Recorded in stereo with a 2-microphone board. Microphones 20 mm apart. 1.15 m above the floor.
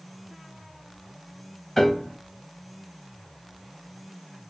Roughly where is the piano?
Centre.